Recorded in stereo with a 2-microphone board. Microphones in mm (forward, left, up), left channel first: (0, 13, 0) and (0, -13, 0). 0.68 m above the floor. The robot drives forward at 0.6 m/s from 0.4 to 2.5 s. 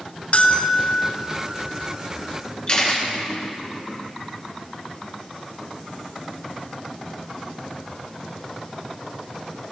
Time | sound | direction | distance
0.3 | a bell | 55° left (ahead or behind) | 0.6 m
2.7 | a camera shutter | 35° left (ahead or behind) | 1.7 m